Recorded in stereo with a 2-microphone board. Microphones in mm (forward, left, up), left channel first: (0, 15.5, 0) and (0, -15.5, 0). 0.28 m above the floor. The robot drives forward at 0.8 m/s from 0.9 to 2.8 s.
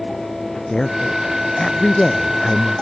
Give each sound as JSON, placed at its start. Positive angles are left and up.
{"t": 0.7, "sound": "a woman speaking", "side_deg": 25}